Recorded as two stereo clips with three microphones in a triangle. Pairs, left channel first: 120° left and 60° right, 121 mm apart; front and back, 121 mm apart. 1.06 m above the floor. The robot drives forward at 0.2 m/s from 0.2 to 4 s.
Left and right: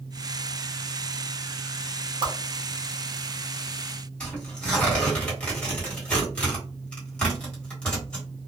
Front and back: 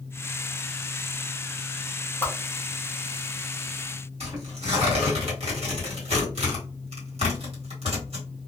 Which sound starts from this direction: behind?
Tearing paper, at 4.2 s.